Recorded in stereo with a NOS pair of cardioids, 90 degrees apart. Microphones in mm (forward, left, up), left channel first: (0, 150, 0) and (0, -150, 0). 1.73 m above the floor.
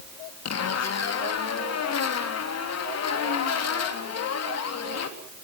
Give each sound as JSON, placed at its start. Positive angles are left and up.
{"t": 0.5, "sound": "a zipper", "azimuth_deg": 55, "distance_m": 3.5}